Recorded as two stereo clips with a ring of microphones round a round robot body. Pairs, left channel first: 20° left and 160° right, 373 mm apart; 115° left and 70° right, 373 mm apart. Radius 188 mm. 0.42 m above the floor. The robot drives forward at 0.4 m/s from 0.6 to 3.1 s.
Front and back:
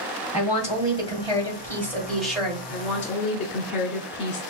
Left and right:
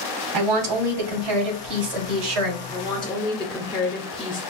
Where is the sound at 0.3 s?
50° right, 2 m; by 2.6 s 70° right, 1.8 m.